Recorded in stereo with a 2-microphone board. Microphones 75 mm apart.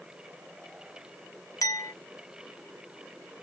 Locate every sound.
1.6 s a clink: 45° left (ahead or behind), 0.8 m